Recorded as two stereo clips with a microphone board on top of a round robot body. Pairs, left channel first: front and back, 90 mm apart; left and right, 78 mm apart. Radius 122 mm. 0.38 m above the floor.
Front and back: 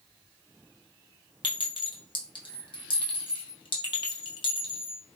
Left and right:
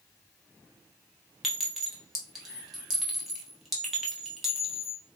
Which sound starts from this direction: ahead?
A clink, at 1.4 s.